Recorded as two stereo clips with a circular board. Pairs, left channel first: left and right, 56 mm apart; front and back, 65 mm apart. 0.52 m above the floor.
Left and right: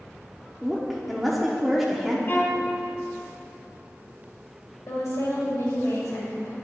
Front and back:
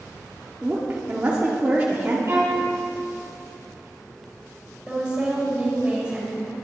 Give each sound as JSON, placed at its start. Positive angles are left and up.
{"t": 0.6, "sound": "a woman speaking", "azimuth_deg": -175, "distance_m": 0.8}
{"t": 2.3, "sound": "a violin", "azimuth_deg": 140, "distance_m": 1.9}
{"t": 4.9, "sound": "a woman speaking", "azimuth_deg": 110, "distance_m": 2.0}